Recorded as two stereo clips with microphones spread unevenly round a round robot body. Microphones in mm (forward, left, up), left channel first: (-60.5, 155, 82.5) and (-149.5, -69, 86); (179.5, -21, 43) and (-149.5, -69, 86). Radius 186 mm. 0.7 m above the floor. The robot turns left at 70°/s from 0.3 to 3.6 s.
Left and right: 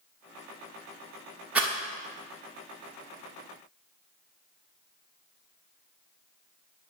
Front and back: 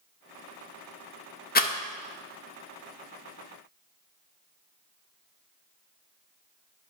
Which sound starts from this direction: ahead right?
A rattle, at 1.6 s.